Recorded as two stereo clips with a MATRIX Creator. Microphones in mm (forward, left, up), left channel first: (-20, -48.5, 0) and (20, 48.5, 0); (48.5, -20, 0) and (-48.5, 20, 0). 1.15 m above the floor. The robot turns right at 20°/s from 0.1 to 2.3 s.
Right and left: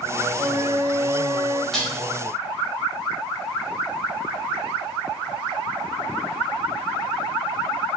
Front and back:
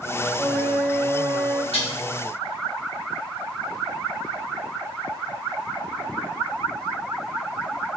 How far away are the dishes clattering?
About 0.9 m.